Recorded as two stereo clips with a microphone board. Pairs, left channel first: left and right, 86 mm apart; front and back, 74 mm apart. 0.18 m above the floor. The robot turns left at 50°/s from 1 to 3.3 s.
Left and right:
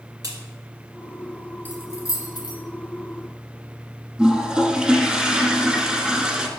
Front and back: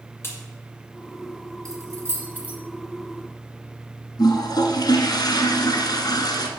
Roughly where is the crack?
Ahead right.